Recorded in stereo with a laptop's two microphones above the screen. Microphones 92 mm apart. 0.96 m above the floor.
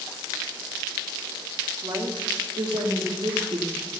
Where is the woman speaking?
50° right (ahead or behind), 1.8 m; by 3.9 s 70° right (ahead or behind), 1.6 m.